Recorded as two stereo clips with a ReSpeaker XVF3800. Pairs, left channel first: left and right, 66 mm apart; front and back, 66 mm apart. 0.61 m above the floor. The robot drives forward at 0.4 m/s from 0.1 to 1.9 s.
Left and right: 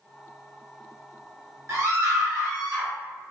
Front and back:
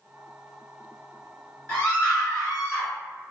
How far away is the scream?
About 1.8 m.